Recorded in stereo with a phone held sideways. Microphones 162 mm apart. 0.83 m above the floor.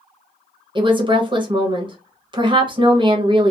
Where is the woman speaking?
30° right (ahead or behind), 0.7 m.